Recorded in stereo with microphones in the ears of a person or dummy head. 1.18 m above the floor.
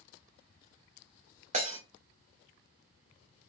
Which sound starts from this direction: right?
Breaking glass, at 1.5 s.